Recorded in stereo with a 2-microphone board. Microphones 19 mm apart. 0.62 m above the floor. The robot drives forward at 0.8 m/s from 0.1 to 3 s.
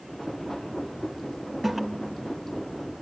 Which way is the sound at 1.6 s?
5° right (ahead or behind).